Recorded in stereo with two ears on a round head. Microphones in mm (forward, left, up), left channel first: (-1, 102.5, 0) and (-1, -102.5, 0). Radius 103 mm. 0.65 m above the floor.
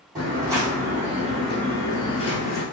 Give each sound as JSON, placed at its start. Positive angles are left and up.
{"t": 0.1, "sound": "footsteps", "side_deg": -20, "distance_m": 2.0}